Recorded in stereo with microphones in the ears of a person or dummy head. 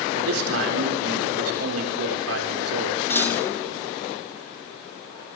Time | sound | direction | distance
0.1 | a man speaking | 90° right | 4 m
3.1 | a clunk | 10° left (ahead or behind) | 1.6 m